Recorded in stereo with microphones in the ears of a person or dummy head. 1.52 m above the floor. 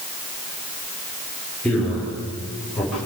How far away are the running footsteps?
No running footsteps in this recording.